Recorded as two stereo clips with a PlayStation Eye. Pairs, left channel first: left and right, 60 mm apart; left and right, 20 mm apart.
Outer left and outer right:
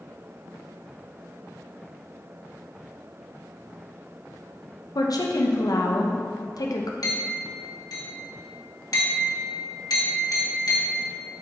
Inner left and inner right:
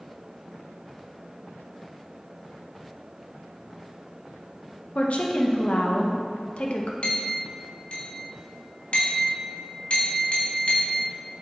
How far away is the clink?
About 1.4 m.